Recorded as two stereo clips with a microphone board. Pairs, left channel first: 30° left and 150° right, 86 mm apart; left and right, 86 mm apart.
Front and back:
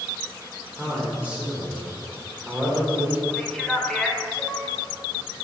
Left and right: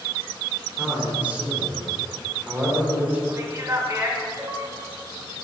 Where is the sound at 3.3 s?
50° right, 1.0 m.